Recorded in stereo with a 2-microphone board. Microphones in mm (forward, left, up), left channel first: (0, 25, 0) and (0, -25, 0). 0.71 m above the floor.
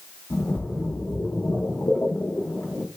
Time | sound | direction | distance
0.3 | a splash | 60° left (ahead or behind) | 0.9 m